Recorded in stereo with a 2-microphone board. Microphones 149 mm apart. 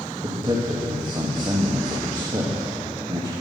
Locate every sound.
0.2 s a man speaking: 30° right (ahead or behind), 1.6 m